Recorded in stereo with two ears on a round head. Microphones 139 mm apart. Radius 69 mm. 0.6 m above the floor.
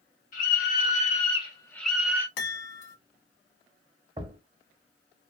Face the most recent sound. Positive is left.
turn(degrees=-30)  # may be behind; listen again after turning